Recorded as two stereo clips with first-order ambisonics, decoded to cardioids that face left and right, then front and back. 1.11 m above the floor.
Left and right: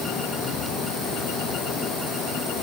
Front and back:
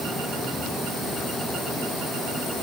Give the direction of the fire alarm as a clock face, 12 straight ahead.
I don't hear a fire alarm.